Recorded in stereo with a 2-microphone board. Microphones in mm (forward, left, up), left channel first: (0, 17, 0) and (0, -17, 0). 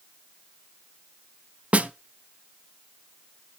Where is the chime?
No chime in this recording.